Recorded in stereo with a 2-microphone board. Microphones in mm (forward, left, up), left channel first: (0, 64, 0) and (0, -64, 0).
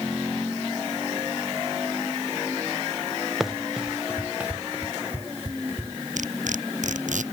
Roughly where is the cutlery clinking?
Right.